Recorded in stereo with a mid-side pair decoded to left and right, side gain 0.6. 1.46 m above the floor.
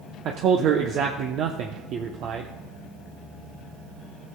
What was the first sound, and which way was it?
A man speaking, 60° right.